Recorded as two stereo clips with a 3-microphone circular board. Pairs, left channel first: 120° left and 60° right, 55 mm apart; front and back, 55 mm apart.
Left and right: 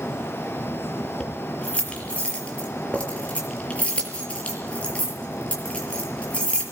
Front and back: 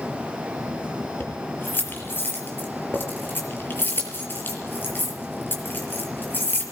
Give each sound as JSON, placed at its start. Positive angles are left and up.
{"t": 1.2, "sound": "keys jangling", "azimuth_deg": 55, "distance_m": 5.5}